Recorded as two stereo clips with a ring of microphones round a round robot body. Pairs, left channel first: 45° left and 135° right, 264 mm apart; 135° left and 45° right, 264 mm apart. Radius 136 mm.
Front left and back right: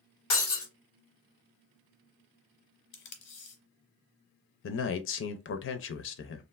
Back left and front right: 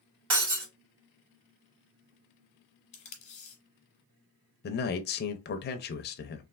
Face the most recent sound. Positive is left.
turn(degrees=85)